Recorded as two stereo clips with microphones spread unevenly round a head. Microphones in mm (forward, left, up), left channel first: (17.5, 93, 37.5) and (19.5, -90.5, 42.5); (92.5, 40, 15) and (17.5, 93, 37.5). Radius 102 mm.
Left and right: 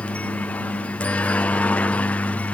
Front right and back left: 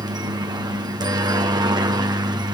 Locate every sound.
0.0 s a helicopter: 165° left